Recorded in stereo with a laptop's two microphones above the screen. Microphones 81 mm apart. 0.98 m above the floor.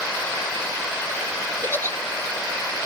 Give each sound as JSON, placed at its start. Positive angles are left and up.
{"t": 1.6, "sound": "a giggle", "side_deg": 25, "distance_m": 0.6}